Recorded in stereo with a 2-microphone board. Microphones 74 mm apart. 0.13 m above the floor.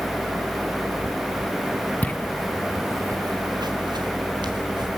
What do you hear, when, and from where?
2.0 s footsteps: 25° left (ahead or behind), 1.3 m; by 4.9 s 85° right, 3 m